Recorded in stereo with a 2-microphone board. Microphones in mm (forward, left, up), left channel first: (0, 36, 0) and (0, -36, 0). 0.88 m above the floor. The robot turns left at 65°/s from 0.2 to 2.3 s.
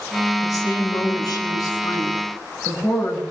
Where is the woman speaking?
135° left, 8 m; by 3.2 s 15° left, 8 m.